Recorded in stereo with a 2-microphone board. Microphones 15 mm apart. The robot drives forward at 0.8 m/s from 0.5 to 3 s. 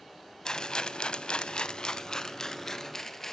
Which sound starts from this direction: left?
A rattle, at 0.5 s.